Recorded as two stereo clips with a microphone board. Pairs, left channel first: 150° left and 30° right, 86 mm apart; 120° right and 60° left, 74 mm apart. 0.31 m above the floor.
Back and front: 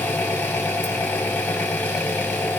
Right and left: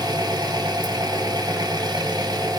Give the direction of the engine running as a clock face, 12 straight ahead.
9 o'clock.